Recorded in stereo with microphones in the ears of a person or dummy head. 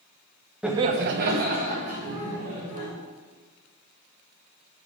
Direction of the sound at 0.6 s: 5° right (ahead or behind).